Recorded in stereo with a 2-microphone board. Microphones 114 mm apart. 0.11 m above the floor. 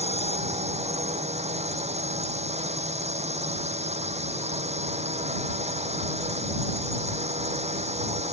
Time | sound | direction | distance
0.0 | a drone | 75° right (ahead or behind) | ?